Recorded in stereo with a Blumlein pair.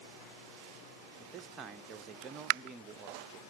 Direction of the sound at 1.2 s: 20° right.